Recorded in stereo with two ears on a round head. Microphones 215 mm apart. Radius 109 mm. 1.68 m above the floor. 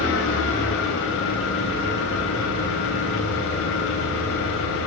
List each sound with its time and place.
0.0 s an engine running: 55° left (ahead or behind), 4 m